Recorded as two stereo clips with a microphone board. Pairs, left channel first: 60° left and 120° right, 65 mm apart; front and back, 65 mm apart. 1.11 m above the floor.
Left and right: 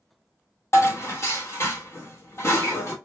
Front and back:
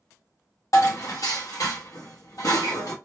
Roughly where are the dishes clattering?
Ahead.